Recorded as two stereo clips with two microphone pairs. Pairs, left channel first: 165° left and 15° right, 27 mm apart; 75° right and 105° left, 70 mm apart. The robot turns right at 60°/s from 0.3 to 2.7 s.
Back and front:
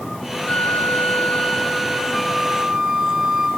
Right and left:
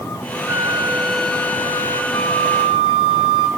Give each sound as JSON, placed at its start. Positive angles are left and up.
{"t": 0.5, "sound": "a flute", "azimuth_deg": 150, "distance_m": 1.4}
{"t": 2.1, "sound": "a flute", "azimuth_deg": -120, "distance_m": 0.9}